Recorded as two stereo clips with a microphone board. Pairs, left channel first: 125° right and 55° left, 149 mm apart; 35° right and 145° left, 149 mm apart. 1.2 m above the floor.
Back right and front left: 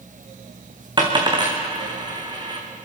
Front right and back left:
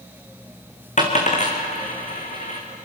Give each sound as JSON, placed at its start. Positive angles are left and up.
{"t": 1.0, "sound": "a dropped coin", "azimuth_deg": -5, "distance_m": 3.5}